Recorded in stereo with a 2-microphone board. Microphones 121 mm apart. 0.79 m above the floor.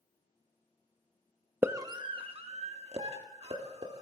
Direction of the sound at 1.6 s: 15° right (ahead or behind).